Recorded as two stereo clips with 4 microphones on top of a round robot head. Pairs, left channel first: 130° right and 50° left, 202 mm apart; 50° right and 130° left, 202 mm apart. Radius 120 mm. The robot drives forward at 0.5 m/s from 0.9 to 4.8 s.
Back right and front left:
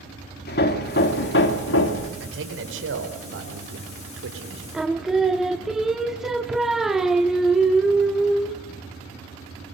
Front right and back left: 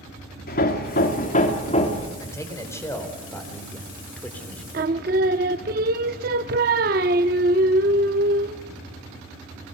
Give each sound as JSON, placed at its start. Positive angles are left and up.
{"t": 0.5, "sound": "hammering", "azimuth_deg": -95, "distance_m": 1.7}
{"t": 2.2, "sound": "a man speaking", "azimuth_deg": 25, "distance_m": 4.5}
{"t": 4.7, "sound": "singing", "azimuth_deg": 135, "distance_m": 0.6}